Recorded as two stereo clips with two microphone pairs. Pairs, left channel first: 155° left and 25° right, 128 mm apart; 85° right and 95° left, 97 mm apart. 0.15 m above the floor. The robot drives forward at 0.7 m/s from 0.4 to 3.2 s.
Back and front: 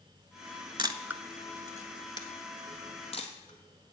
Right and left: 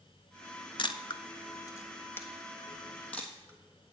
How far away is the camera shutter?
About 0.5 m.